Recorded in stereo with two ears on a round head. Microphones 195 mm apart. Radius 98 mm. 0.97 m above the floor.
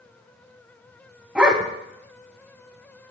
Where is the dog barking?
5° right (ahead or behind), 1.8 m.